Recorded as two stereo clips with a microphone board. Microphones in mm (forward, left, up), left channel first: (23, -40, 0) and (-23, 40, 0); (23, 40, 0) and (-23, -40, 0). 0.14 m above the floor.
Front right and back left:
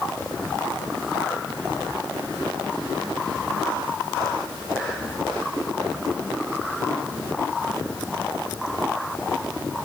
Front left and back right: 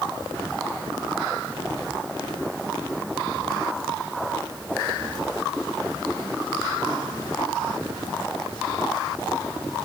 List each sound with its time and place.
Only background noise.